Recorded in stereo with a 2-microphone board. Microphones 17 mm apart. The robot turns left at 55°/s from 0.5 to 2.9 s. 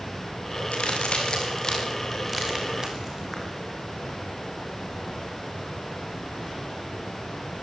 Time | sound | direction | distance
0.7 | a crack | 85° left | 6.5 m